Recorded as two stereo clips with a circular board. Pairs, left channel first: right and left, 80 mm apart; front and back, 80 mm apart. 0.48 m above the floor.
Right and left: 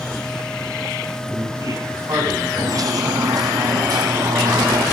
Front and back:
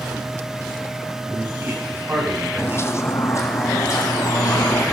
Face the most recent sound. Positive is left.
turn(degrees=50)